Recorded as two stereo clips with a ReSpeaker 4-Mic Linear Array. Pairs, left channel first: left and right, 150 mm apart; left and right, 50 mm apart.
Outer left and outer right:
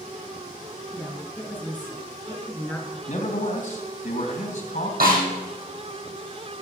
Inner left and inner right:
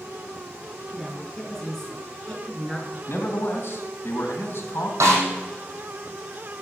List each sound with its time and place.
0.9 s a woman speaking: 10° left (ahead or behind), 5 m
3.1 s a man speaking: 60° left (ahead or behind), 2.5 m
5.0 s a snare drum: 85° right, 5.5 m